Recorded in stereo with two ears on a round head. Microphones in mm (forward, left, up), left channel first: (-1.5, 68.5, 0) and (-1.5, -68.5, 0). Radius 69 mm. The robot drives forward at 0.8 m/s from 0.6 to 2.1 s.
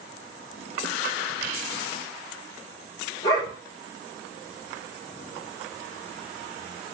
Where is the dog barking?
25° left (ahead or behind), 8.5 m.